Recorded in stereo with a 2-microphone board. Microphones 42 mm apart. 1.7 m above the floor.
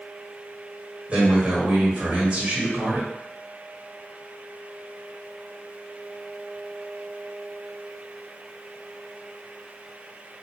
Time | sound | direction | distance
1.1 | a man speaking | 30° right (ahead or behind) | 1.2 m